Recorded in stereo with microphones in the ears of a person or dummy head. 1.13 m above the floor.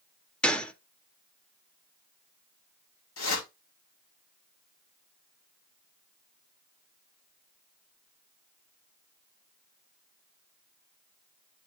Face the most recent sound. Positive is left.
turn(degrees=70)  # may be behind; listen again after turning